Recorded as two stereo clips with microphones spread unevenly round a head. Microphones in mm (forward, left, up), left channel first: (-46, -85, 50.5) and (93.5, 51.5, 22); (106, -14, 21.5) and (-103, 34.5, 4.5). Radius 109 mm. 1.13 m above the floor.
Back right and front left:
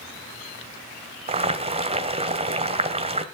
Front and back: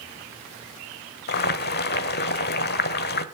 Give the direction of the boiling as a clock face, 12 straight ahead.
1 o'clock.